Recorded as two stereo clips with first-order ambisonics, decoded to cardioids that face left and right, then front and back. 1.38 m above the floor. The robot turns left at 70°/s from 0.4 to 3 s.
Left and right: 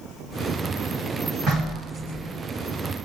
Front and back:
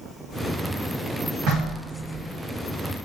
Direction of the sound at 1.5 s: 150° right.